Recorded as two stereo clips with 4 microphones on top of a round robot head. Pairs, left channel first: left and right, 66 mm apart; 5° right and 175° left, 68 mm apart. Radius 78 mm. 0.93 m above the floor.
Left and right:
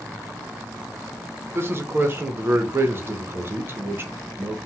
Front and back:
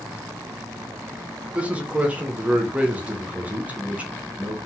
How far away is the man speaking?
About 0.7 m.